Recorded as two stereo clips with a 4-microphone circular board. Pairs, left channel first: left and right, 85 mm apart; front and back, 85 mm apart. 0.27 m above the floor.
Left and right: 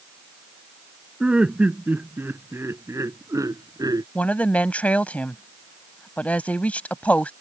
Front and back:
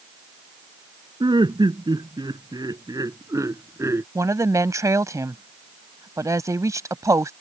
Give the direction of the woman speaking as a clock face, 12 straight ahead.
7 o'clock.